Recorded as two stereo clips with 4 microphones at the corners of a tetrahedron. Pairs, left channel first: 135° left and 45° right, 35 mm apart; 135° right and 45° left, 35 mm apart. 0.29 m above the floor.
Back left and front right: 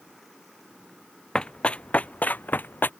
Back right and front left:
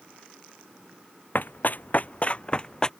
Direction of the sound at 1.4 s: 165° right.